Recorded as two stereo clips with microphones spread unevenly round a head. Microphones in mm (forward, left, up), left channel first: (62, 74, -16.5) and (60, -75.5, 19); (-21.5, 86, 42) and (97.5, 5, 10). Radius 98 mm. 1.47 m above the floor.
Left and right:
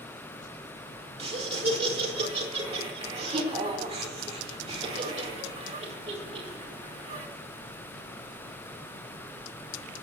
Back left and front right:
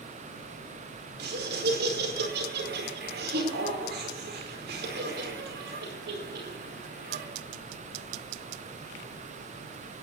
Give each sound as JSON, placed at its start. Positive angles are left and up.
{"t": 1.2, "sound": "laughter", "azimuth_deg": -40, "distance_m": 4.5}